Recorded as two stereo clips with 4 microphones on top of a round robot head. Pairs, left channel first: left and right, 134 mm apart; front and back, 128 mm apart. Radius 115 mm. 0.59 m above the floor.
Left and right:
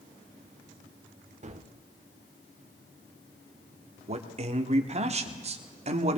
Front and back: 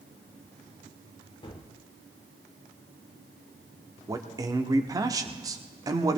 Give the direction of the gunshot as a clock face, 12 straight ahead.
2 o'clock.